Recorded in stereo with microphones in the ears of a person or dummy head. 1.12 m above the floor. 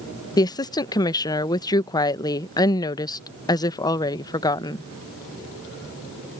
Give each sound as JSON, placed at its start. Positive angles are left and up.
{"t": 0.4, "sound": "a woman speaking", "side_deg": 15}